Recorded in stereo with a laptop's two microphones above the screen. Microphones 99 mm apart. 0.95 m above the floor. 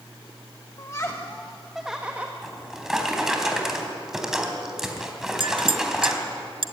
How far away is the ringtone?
I don't hear a ringtone.